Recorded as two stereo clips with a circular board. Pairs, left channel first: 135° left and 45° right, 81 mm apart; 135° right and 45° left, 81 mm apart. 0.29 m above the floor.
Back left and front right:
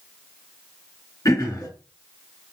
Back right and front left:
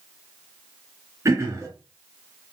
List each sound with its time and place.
1.2 s throat clearing: 95° left, 2.5 m